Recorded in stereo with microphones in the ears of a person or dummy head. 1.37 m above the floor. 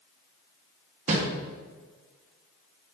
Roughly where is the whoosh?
Right.